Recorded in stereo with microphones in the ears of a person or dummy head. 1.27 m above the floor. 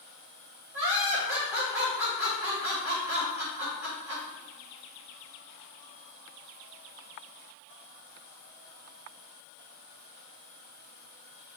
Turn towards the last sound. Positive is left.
turn(degrees=-10)  # may be behind; listen again after turning